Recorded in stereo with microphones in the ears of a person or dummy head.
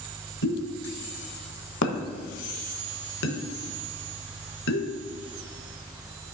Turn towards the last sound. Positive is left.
turn(degrees=60)  # may be behind; listen again after turning